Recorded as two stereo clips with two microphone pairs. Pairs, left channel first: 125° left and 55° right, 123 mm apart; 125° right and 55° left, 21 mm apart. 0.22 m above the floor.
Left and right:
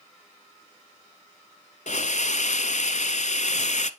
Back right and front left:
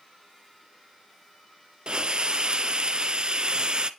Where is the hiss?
100° left, 0.7 m.